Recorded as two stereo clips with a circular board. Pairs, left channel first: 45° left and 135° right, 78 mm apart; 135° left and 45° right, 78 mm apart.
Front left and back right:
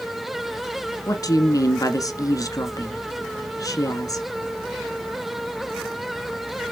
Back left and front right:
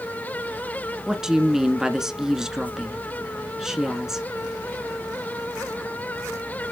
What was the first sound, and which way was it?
A woman speaking, 35° left.